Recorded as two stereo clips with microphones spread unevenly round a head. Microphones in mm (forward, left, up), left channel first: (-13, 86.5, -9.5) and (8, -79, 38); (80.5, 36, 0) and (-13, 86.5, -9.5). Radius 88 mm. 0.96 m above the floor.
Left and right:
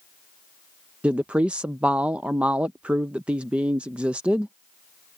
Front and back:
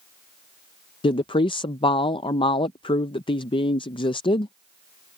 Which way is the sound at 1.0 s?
10° left.